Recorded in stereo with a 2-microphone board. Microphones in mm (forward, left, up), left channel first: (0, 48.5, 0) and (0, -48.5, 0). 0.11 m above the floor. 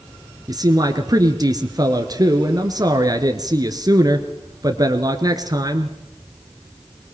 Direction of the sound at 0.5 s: 40° right (ahead or behind).